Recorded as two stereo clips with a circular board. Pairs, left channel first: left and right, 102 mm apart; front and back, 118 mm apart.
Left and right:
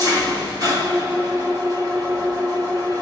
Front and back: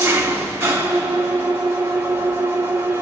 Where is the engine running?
120° right, 1.1 m.